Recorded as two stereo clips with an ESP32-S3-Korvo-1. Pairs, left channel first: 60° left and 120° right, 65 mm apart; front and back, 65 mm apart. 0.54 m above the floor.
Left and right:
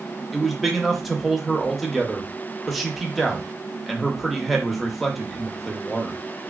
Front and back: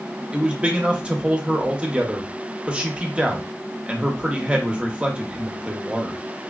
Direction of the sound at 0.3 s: 150° left.